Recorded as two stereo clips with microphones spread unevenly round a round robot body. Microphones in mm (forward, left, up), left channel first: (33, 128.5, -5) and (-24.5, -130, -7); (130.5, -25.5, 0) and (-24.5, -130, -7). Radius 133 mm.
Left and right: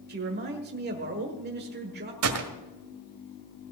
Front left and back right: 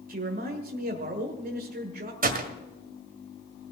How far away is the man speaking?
About 1.5 m.